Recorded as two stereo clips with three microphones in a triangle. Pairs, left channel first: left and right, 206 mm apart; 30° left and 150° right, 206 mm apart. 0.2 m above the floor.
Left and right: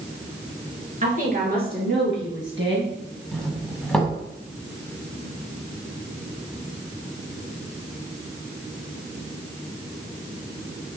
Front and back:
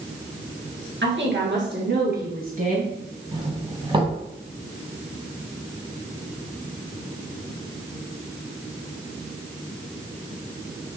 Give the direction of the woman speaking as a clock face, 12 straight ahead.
5 o'clock.